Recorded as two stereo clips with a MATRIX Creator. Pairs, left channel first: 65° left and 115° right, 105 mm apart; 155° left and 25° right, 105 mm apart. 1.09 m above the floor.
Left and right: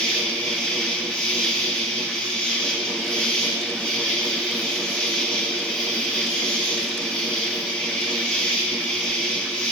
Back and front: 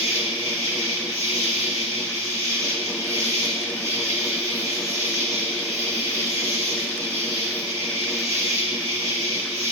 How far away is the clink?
No clink in this recording.